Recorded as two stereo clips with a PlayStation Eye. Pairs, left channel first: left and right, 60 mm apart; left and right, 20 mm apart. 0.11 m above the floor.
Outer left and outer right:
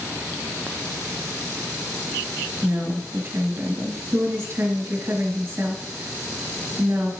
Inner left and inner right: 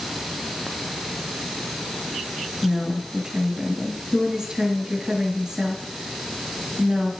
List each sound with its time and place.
2.6 s a woman speaking: 45° right (ahead or behind), 1.8 m